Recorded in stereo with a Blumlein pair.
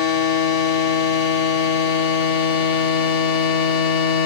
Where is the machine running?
50° left, 1.5 m.